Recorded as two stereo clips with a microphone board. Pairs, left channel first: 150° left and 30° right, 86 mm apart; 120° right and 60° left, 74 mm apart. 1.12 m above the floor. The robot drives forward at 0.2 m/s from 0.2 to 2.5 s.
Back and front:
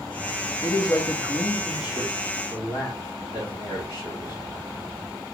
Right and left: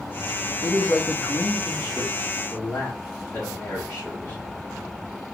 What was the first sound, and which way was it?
A man speaking, straight behind.